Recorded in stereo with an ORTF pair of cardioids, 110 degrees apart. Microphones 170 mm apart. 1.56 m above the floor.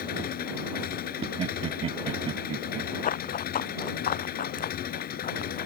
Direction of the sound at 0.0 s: 65° left.